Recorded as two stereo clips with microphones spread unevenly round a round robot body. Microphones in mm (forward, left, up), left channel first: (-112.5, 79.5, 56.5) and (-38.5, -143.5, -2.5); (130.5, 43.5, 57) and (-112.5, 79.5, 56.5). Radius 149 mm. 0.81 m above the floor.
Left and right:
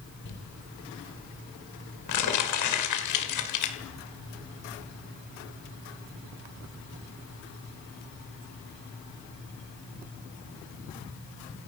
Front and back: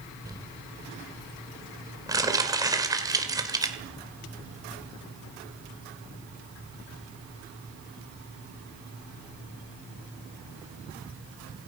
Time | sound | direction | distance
0.2 | crumpling | 95° left | 2.0 m